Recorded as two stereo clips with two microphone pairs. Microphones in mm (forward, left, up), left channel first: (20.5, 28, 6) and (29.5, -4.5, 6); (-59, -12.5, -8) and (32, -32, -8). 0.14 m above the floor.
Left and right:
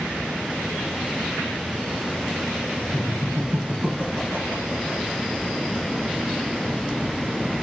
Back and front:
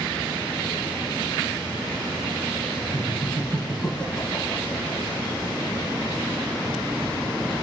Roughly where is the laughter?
Behind right.